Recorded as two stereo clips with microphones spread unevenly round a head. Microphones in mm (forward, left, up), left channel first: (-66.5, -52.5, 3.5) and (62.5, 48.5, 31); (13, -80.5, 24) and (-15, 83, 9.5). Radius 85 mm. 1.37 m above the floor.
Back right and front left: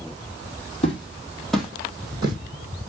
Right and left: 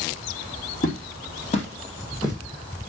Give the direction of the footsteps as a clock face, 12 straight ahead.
3 o'clock.